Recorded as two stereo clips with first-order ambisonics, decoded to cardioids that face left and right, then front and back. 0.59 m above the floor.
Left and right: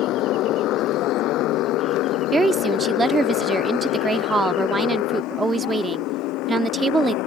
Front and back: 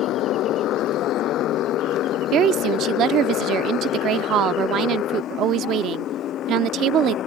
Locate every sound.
0.0 s a motorcycle: 45° left; by 7.3 s 55° left
2.3 s a woman speaking: 160° right